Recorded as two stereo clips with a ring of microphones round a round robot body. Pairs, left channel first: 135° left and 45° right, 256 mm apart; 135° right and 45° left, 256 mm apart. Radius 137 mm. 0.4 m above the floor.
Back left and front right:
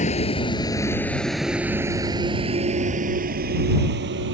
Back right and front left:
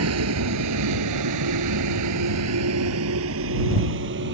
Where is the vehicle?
75° left; by 4.3 s straight ahead.